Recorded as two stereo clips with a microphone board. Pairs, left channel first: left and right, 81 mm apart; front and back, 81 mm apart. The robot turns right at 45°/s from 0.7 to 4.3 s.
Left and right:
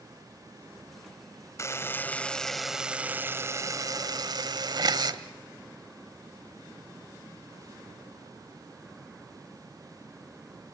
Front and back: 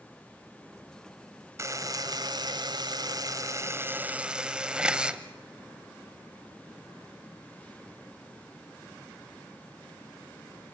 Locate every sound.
1.6 s a buzzer: 135° left, 1.2 m; by 5.2 s 105° right, 1.2 m